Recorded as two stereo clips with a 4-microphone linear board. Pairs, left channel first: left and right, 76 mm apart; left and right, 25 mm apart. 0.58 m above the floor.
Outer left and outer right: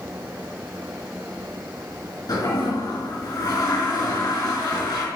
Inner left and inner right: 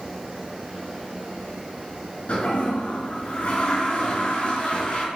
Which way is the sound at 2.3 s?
50° left (ahead or behind).